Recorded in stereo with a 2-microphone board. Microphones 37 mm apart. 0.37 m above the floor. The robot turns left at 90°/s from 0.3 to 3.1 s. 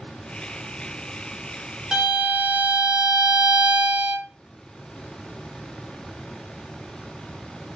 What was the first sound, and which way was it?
A violin, 20° right.